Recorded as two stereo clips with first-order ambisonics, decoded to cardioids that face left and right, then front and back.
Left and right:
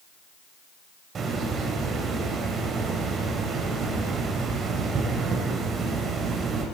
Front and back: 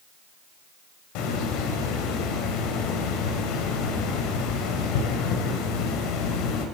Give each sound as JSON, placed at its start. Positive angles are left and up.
{"t": 1.1, "sound": "a hiss", "azimuth_deg": -25, "distance_m": 2.5}